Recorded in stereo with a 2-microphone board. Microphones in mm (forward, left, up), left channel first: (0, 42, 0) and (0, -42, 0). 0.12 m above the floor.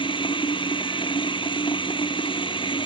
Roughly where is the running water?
Left.